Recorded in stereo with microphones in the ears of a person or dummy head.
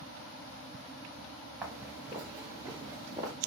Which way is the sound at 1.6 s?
10° right (ahead or behind).